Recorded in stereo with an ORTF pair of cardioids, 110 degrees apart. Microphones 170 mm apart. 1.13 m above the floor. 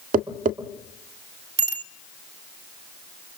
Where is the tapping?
55° right, 1.7 m.